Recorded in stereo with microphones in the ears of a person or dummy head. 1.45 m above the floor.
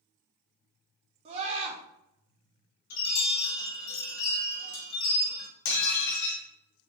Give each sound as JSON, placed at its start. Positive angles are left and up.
{"t": 1.2, "sound": "a scream", "side_deg": -35, "distance_m": 0.7}
{"t": 2.9, "sound": "a chime", "side_deg": 80, "distance_m": 1.1}
{"t": 5.7, "sound": "dishes clattering", "side_deg": 60, "distance_m": 0.8}